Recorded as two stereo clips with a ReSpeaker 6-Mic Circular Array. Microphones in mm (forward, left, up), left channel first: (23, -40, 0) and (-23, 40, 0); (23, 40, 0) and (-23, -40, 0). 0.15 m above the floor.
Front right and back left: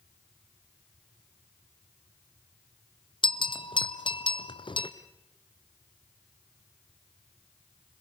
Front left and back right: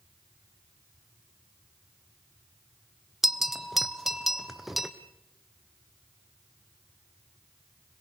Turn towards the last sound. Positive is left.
turn(degrees=-30)